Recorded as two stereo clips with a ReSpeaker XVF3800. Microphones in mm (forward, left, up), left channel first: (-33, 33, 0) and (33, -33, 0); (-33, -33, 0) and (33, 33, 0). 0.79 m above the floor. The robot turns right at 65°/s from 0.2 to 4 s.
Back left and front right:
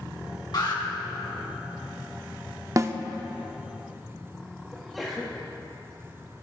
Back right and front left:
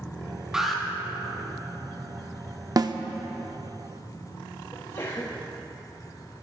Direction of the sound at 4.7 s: 135° right.